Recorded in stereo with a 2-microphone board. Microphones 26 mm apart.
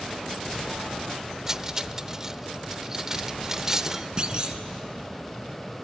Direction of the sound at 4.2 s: 30° right (ahead or behind).